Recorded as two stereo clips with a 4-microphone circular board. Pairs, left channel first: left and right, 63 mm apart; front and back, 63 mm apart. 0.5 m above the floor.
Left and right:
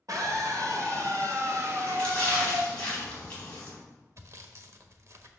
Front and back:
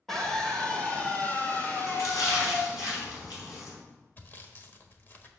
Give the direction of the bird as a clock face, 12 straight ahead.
I don't hear a bird.